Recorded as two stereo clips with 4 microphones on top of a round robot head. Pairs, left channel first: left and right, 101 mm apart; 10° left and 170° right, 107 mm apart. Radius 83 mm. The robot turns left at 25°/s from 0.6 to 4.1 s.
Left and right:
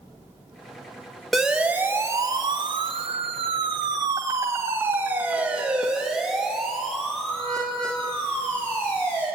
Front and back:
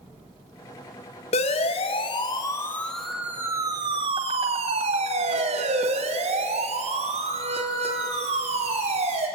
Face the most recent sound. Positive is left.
turn(degrees=170)